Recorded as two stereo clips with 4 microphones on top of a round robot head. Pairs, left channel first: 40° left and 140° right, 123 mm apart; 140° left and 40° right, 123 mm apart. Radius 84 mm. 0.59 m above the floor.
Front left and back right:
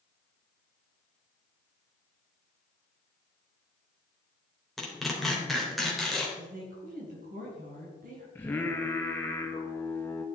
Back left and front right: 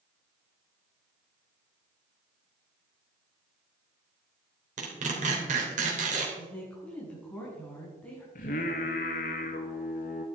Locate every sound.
4.8 s tearing paper: 45° right, 3.5 m
6.4 s a woman speaking: 140° right, 5.5 m
8.3 s singing: 115° left, 1.6 m